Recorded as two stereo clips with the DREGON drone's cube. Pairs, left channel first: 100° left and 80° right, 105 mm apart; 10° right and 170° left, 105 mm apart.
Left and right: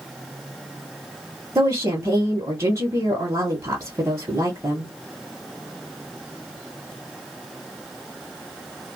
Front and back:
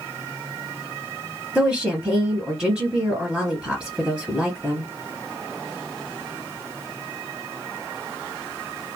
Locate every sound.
1.6 s a woman speaking: 110° right, 1.2 m